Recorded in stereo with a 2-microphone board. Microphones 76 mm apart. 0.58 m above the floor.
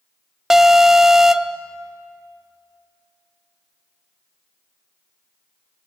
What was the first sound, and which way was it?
An alarm, 5° right (ahead or behind).